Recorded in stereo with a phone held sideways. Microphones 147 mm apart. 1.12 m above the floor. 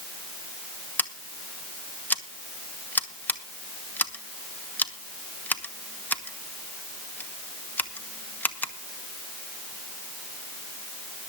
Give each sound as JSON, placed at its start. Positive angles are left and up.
{"t": 1.0, "sound": "scissors", "side_deg": 10, "distance_m": 1.1}